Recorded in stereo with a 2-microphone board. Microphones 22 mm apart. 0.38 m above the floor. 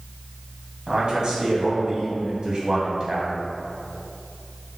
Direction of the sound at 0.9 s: 35° right (ahead or behind).